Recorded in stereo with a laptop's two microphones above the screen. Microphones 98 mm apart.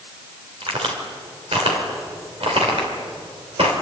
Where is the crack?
70° right (ahead or behind), 3.5 m.